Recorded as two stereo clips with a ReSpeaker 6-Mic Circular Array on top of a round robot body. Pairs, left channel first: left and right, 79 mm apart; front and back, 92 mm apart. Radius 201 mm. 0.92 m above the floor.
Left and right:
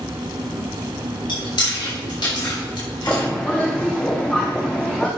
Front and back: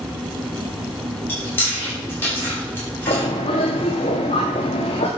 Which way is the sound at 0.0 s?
90° right.